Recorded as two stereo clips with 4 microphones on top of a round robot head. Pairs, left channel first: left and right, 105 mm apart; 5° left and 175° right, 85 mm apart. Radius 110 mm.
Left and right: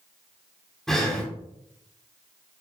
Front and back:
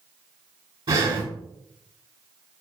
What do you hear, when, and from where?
0.9 s breathing: 175° left, 3 m